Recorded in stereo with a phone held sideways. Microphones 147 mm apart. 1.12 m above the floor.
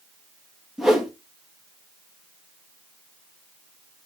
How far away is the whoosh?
About 1.9 m.